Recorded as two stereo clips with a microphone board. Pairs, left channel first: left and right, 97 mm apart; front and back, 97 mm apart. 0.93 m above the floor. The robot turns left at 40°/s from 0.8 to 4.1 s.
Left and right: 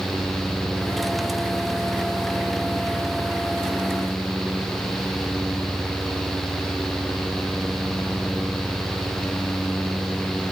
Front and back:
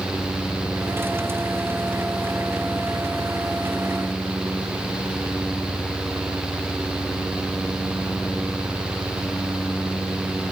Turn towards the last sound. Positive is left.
No sound to turn to.